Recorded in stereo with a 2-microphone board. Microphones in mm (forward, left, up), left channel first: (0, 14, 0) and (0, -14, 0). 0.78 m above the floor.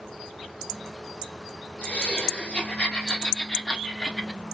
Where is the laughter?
60° left (ahead or behind), 2 m; by 4.4 s 15° left (ahead or behind), 1.1 m.